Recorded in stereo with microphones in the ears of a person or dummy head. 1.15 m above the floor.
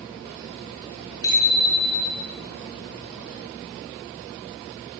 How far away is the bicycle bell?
About 9.5 m.